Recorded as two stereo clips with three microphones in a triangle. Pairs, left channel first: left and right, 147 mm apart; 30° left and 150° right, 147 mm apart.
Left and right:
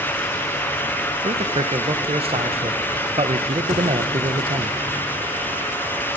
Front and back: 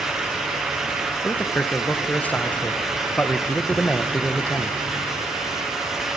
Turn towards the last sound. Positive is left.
turn(degrees=-50)